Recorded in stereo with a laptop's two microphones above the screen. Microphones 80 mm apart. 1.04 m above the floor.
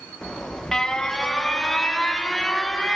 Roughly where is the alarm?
Centre.